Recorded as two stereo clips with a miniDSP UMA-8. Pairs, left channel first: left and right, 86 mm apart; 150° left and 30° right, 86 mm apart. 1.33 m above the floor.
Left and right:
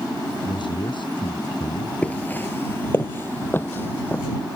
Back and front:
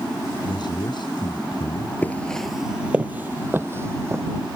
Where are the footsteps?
135° left; by 4.2 s 25° left.